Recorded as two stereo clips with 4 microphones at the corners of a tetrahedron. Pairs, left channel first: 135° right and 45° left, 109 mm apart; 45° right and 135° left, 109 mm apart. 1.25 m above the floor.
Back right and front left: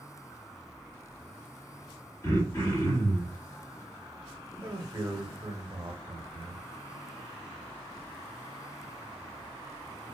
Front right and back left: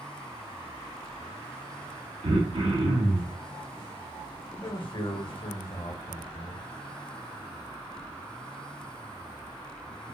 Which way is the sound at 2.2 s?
165° left.